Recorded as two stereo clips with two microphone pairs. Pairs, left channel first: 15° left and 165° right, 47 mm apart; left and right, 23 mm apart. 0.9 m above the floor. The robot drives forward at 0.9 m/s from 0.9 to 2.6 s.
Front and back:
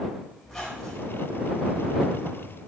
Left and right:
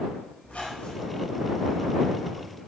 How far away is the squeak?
About 3.5 m.